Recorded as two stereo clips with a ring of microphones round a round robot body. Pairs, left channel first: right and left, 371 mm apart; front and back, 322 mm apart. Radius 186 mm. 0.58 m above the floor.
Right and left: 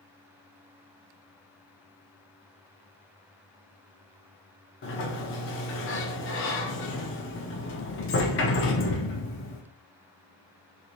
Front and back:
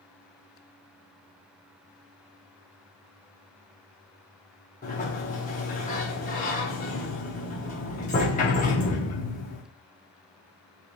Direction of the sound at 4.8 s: 55° right.